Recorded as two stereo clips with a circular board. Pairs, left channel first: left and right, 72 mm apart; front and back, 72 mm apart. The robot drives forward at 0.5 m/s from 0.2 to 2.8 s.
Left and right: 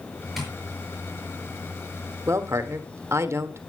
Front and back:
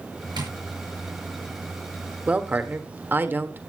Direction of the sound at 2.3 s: 115° right.